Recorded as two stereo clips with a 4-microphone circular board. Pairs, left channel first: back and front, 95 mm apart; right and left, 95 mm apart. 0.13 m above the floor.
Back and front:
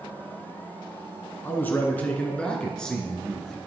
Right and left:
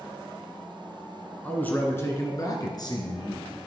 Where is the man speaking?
150° right, 1.8 m; by 3.6 s 90° right, 2.5 m.